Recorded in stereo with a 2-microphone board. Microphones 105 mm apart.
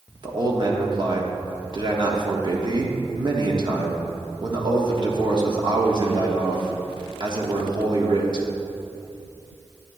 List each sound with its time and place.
0.2 s a man speaking: 45° right (ahead or behind), 1.3 m